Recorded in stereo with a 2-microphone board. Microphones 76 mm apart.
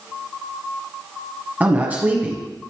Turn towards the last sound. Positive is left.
turn(degrees=-20)  # may be behind; listen again after turning